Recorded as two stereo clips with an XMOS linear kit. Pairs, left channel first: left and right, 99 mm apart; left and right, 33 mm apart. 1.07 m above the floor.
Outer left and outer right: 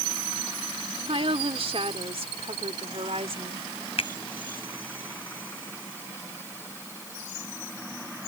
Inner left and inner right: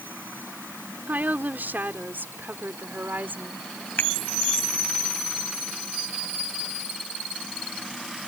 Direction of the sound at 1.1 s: 70° right (ahead or behind).